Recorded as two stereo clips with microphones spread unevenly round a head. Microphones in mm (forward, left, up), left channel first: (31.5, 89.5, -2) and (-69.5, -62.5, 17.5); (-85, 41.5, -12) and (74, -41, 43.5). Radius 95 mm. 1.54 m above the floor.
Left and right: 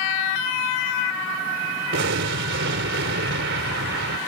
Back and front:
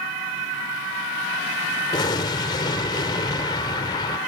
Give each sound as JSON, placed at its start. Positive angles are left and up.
{"t": 1.9, "sound": "an explosion", "azimuth_deg": -140}